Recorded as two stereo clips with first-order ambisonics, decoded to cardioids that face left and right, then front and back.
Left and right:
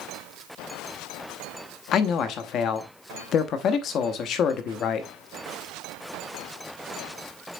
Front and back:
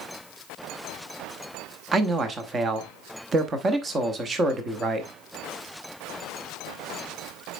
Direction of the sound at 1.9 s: 120° left.